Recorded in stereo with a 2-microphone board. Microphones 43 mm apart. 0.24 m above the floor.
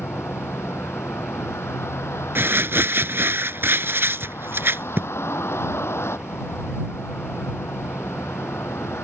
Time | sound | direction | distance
0.0 | a vehicle | 85° left | ?
2.4 | crumpling | 60° right (ahead or behind) | ?